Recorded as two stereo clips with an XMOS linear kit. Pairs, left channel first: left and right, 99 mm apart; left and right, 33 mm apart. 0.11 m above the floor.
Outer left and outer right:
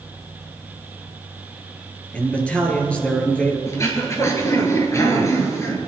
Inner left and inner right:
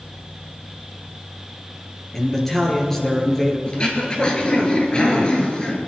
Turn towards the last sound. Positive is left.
turn(degrees=30)  # may be behind; listen again after turning